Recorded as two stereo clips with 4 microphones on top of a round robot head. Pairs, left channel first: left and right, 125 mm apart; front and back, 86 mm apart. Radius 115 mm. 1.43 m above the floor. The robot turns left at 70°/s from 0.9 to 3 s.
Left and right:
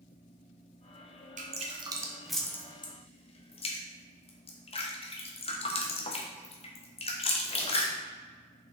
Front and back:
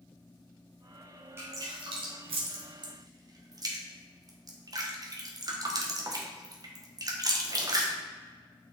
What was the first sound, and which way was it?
Dripping, 115° right.